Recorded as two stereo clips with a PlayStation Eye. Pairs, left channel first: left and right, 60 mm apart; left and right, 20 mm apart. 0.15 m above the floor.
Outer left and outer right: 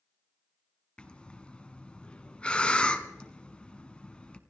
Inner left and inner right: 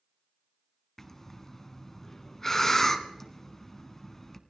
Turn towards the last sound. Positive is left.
turn(degrees=15)  # may be behind; listen again after turning